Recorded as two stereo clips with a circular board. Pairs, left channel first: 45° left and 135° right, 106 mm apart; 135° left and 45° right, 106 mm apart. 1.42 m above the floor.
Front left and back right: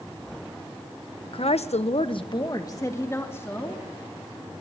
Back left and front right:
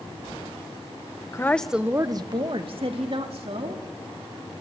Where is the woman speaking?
75° left, 1.1 m; by 3.8 s 25° right, 3.5 m.